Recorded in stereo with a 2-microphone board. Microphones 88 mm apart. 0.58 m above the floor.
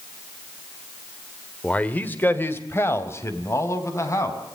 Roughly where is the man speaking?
Centre.